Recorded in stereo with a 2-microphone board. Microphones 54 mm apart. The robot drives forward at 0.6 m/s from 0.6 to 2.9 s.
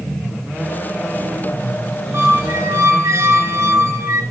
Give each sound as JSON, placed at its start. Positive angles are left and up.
{"t": 2.1, "sound": "a squeak", "side_deg": -60, "distance_m": 1.8}